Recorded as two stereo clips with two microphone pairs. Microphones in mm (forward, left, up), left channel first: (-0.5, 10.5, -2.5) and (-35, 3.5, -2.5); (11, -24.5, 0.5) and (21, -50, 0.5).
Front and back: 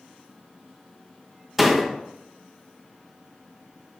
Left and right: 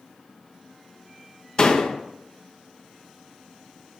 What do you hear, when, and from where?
1.6 s a door slam: 105° left, 0.9 m